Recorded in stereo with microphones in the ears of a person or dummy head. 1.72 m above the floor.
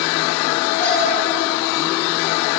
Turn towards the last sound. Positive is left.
turn(degrees=10)  # may be behind; listen again after turning